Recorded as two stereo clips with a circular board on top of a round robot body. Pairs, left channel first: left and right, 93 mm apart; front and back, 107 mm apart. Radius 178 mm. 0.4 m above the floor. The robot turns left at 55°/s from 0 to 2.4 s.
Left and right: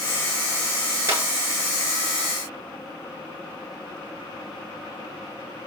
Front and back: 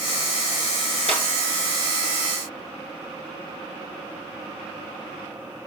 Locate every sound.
1.1 s a clap: 25° right, 6 m; by 1.2 s 35° right, 6 m